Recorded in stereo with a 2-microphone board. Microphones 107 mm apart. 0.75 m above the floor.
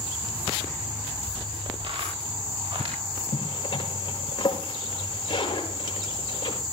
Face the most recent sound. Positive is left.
turn(degrees=40)  # may be behind; listen again after turning